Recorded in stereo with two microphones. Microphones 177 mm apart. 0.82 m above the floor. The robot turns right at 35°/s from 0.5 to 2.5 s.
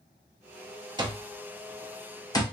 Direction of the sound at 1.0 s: 25° right (ahead or behind).